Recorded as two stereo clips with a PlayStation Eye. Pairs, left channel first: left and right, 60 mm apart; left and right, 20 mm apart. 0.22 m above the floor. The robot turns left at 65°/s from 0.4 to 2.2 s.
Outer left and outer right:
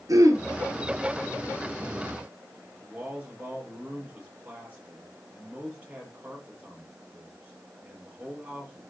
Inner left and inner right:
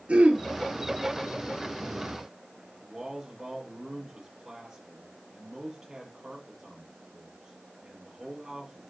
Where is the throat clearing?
70° right (ahead or behind), 3 m.